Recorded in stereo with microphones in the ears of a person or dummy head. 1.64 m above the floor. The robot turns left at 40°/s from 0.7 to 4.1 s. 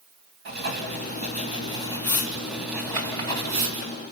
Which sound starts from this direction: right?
Writing, at 0.5 s.